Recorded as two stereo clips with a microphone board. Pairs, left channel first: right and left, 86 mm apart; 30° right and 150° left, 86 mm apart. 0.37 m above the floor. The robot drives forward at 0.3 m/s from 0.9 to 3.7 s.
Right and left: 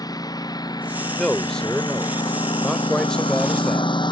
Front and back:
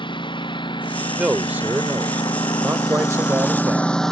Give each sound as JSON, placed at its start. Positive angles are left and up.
{"t": 0.0, "sound": "a lawn mower", "azimuth_deg": -50}
{"t": 1.2, "sound": "a man speaking", "azimuth_deg": -160}